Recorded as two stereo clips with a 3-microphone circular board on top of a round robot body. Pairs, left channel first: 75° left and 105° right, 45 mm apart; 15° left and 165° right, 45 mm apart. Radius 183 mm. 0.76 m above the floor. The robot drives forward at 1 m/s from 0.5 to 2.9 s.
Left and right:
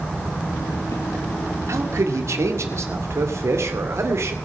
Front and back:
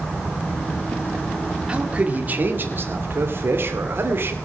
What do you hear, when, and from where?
1.7 s a man speaking: 95° right, 2 m; by 4.3 s 125° right, 2.5 m